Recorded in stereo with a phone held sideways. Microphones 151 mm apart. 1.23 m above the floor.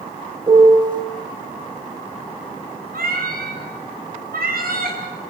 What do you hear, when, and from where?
0.5 s a piano: 25° right (ahead or behind), 5 m
2.9 s a cat meowing: 75° right (ahead or behind), 5 m